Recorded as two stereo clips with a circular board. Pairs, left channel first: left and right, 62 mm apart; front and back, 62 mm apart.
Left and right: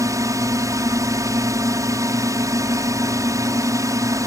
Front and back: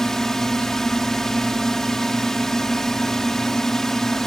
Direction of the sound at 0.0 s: 80° right.